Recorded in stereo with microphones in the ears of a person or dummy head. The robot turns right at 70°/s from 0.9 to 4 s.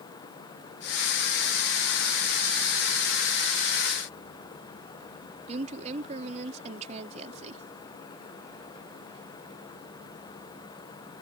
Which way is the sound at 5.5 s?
40° right (ahead or behind).